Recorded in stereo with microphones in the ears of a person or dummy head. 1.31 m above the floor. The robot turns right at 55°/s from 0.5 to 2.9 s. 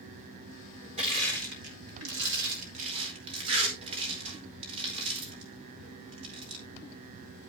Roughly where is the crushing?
Right.